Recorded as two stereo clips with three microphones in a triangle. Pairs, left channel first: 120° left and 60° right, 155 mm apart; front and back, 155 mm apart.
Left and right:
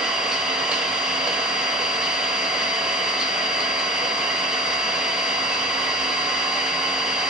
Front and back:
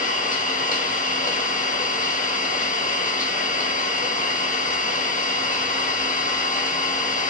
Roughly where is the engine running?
Ahead left.